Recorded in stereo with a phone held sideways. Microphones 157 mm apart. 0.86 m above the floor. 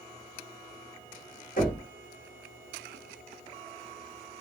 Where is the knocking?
60° left (ahead or behind), 1.3 m.